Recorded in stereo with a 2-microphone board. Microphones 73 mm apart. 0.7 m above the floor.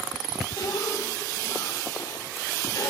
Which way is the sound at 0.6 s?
80° left.